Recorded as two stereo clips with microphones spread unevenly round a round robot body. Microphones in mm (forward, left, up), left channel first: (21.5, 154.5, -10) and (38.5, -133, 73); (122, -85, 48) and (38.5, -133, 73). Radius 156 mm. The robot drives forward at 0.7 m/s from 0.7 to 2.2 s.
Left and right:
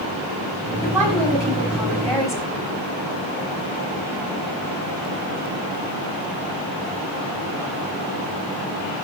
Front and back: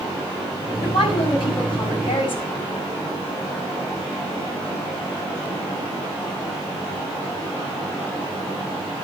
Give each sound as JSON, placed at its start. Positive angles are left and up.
{"t": 0.8, "sound": "a woman speaking", "azimuth_deg": 5, "distance_m": 6.0}